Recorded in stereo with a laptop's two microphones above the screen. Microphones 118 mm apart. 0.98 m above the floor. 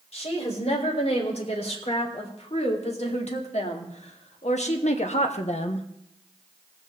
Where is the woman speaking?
60° left (ahead or behind), 4 m.